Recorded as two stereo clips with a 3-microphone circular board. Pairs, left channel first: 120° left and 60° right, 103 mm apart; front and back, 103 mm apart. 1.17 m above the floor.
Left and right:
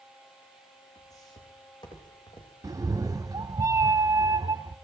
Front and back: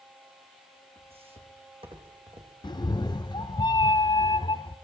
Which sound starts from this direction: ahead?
A cat meowing, at 2.6 s.